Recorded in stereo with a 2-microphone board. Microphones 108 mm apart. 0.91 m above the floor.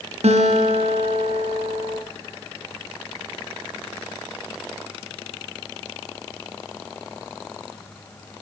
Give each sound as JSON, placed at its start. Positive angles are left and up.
{"t": 0.2, "sound": "a guitar", "side_deg": -80, "distance_m": 4.5}